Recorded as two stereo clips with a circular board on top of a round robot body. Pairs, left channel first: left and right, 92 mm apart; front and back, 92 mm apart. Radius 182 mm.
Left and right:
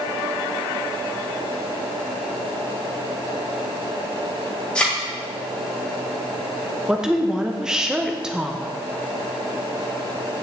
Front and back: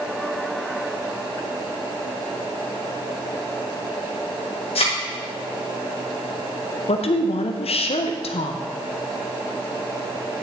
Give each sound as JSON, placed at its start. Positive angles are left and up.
{"t": 4.8, "sound": "a thud", "azimuth_deg": 10, "distance_m": 1.7}
{"t": 6.9, "sound": "a woman speaking", "azimuth_deg": -5, "distance_m": 0.8}